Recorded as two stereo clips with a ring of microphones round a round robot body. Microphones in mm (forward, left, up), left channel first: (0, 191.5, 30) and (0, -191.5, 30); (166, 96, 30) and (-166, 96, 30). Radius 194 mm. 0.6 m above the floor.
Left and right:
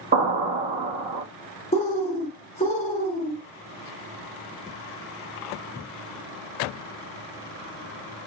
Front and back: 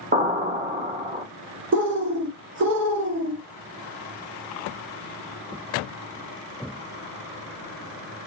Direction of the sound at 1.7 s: 155° left.